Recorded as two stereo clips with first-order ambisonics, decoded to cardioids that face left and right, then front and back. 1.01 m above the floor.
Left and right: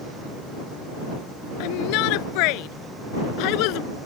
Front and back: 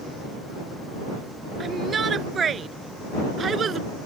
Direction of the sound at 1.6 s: 110° left.